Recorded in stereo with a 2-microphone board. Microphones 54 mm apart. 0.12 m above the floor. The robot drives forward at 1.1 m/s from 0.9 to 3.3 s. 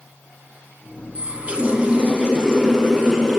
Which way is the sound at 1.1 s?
25° right (ahead or behind).